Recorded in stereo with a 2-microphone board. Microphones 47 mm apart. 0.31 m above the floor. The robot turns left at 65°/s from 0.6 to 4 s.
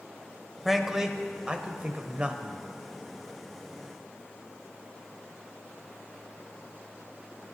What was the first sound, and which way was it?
A man speaking, centre (ahead or behind).